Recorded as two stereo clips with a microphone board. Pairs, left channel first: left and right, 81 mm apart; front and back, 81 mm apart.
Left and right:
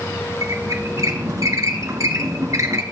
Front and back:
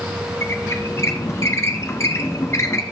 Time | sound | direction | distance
0.4 | a squeak | 50° right | 0.9 m